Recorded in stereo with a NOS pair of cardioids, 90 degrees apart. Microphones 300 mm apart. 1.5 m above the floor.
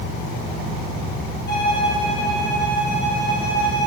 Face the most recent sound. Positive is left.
turn(degrees=35)